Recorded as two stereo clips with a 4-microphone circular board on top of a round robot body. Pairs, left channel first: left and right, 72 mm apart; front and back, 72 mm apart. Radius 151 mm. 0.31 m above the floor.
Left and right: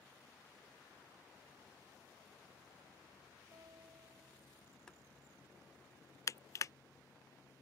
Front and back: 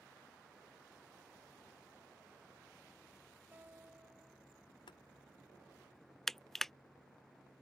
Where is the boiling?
10° left.